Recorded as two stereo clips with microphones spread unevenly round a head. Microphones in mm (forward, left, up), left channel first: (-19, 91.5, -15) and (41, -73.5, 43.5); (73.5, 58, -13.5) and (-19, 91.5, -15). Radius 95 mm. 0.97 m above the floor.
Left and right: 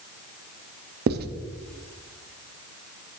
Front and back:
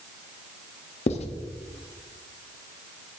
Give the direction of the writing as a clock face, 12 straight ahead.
1 o'clock.